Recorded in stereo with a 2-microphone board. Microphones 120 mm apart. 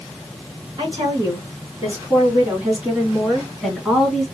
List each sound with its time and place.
0.8 s a woman speaking: 40° right (ahead or behind), 3.5 m; by 4.2 s centre (ahead or behind), 3.5 m